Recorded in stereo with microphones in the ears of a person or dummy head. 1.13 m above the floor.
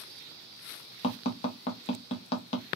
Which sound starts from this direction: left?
Tapping, at 1.0 s.